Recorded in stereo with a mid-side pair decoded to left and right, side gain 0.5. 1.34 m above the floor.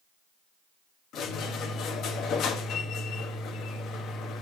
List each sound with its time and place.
1.1 s a squeak: 70° left, 1.4 m